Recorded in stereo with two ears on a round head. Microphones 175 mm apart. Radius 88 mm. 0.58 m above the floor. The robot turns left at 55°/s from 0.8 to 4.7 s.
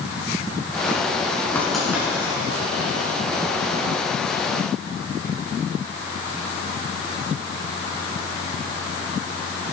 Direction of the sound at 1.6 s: 10° left (ahead or behind).